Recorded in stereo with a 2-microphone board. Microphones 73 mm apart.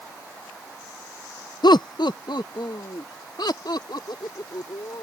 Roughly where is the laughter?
Left.